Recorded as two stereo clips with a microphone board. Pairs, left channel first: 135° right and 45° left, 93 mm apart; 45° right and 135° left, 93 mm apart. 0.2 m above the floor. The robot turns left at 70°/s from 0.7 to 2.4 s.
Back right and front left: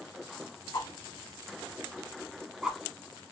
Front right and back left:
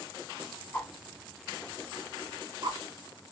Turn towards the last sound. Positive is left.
turn(degrees=130)